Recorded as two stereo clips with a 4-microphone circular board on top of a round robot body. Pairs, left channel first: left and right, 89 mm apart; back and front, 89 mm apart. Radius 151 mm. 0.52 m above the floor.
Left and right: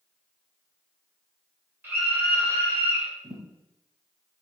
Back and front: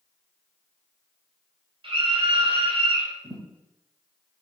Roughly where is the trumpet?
I don't hear a trumpet.